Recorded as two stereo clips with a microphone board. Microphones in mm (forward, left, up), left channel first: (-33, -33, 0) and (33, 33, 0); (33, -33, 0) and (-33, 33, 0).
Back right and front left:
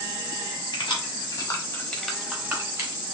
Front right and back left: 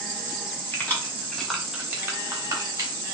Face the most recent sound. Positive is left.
turn(degrees=90)